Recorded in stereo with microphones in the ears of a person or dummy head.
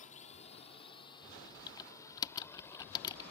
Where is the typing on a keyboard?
20° left (ahead or behind).